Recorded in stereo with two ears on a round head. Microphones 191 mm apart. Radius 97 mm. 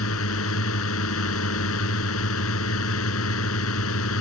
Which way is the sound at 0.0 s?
70° left (ahead or behind).